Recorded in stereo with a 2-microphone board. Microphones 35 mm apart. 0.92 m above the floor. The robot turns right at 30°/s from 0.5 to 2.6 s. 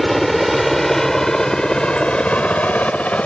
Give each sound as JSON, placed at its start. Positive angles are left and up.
{"t": 0.0, "sound": "a helicopter", "side_deg": 0}